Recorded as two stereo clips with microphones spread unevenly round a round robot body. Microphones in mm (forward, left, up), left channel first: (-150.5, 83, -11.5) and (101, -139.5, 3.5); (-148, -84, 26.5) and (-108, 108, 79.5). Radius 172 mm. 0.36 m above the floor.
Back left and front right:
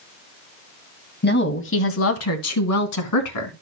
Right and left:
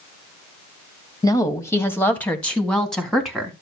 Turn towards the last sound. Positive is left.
turn(degrees=170)